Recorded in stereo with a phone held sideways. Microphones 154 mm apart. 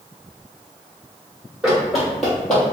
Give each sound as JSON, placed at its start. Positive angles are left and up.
{"t": 1.6, "sound": "running footsteps", "side_deg": -5, "distance_m": 2.0}